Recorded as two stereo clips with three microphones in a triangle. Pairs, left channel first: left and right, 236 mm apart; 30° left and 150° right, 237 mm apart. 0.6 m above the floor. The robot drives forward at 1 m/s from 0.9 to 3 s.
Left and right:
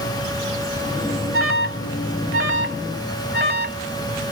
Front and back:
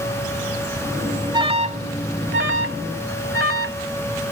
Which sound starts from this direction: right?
An alarm, at 1.3 s.